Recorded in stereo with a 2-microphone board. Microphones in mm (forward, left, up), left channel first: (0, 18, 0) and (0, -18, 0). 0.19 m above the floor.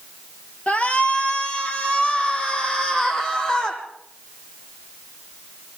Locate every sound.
0.7 s a shout: 35° left (ahead or behind), 3 m; by 3.8 s 15° left (ahead or behind), 7 m